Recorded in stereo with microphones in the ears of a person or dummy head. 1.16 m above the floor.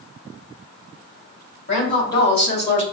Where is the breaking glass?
I don't hear breaking glass.